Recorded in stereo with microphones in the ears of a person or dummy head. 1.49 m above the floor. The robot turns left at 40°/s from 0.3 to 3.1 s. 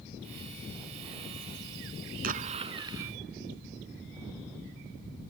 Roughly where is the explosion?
Behind right.